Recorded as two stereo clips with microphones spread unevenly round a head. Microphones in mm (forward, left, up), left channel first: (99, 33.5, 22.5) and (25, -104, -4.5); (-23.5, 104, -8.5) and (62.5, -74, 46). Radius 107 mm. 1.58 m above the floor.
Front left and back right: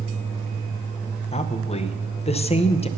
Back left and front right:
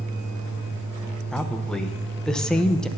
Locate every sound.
1.3 s a woman speaking: 20° left, 0.9 m